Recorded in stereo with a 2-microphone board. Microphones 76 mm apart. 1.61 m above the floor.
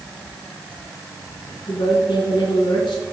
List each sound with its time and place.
1.7 s a woman speaking: 85° left, 1.8 m